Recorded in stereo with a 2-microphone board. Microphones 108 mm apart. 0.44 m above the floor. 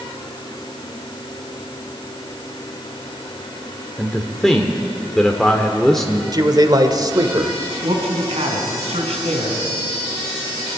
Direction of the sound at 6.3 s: 40° right (ahead or behind).